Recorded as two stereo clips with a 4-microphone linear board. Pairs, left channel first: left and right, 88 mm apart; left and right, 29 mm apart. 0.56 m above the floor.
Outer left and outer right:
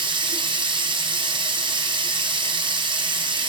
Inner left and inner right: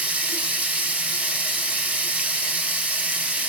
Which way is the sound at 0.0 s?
65° right (ahead or behind).